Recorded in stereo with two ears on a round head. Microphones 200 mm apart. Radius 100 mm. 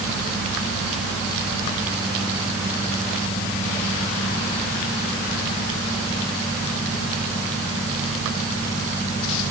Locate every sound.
Only background noise.